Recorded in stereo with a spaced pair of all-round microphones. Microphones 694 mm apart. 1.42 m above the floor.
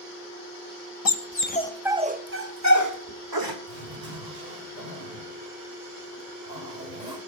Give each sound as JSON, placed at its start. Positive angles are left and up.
{"t": 1.1, "sound": "a dog barking", "side_deg": 30, "distance_m": 0.9}
{"t": 3.7, "sound": "a zipper", "side_deg": -75, "distance_m": 6.5}